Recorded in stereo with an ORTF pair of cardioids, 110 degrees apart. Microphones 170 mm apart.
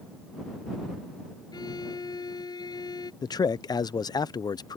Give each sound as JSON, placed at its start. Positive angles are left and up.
{"t": 1.5, "sound": "a violin", "azimuth_deg": 20}
{"t": 3.2, "sound": "a man speaking", "azimuth_deg": 20}